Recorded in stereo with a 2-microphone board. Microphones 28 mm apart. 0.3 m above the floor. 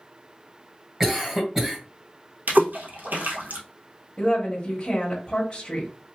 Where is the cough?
10° right (ahead or behind), 1.5 m.